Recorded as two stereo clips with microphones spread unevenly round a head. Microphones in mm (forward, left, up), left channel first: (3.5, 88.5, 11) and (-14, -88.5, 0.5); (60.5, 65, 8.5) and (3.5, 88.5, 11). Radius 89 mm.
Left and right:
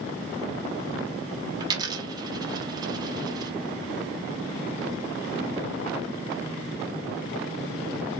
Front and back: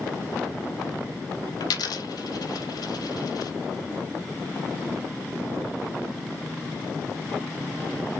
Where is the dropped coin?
25° right, 0.8 m.